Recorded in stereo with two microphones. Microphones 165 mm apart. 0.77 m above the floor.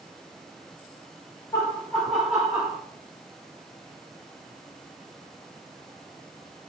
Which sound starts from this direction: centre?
Laughter, at 1.5 s.